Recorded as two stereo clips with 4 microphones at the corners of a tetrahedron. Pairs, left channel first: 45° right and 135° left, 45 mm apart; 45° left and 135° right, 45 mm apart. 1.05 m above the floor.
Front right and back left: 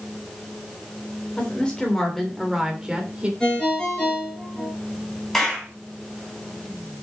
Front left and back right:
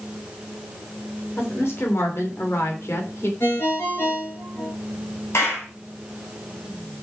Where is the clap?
35° left, 6 m.